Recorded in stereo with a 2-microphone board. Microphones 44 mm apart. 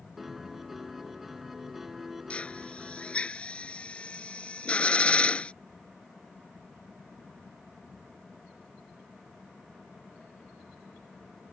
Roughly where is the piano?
Centre.